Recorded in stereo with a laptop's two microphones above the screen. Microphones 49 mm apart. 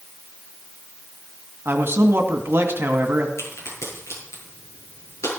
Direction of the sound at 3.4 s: 70° left (ahead or behind).